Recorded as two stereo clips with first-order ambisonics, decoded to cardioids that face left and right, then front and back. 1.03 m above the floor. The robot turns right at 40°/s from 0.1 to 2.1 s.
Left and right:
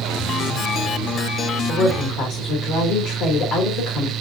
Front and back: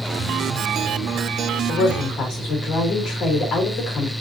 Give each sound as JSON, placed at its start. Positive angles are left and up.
{"t": 1.7, "sound": "a woman speaking", "azimuth_deg": 40, "distance_m": 3.5}